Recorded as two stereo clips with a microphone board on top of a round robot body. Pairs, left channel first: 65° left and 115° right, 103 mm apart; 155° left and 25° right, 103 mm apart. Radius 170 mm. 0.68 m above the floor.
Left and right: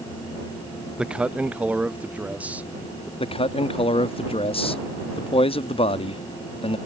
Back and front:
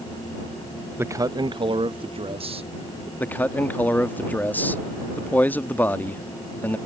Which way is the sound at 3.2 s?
85° left.